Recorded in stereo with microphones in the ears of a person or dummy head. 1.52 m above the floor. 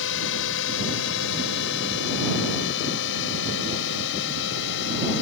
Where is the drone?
70° left (ahead or behind); by 5.2 s 65° left (ahead or behind).